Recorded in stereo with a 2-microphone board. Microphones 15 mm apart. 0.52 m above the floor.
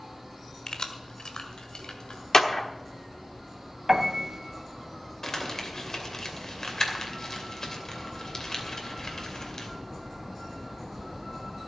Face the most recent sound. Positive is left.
turn(degrees=40)  # may be behind; listen again after turning